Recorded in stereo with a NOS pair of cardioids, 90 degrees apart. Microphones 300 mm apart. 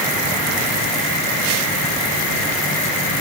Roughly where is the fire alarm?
No fire alarm in this recording.